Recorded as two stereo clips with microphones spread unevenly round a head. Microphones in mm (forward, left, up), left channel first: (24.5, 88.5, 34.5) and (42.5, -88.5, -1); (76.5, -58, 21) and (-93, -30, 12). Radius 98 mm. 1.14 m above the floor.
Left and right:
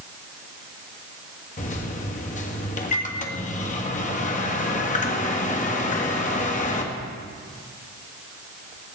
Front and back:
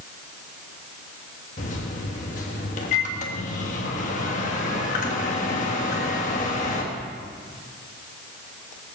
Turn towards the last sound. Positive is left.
turn(degrees=45)